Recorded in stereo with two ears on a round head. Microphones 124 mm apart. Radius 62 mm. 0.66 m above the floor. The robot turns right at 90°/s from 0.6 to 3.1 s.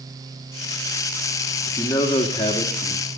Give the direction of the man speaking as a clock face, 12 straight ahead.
12 o'clock.